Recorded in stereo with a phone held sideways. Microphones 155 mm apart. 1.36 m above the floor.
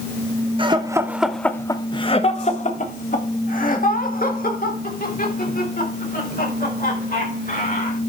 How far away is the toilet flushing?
No toilet flushing in this recording.